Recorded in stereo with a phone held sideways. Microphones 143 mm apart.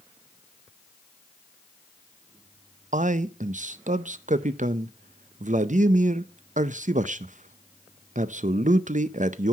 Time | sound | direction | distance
2.9 | a man speaking | 60° right (ahead or behind) | 0.5 m